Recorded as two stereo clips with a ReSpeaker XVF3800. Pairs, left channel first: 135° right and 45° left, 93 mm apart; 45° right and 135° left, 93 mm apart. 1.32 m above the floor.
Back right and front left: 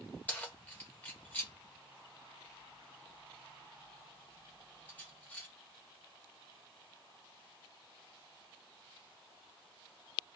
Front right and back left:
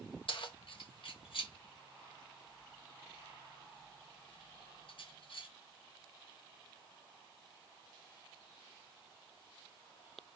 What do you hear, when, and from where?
0.3 s keys jangling: 65° right, 1.0 m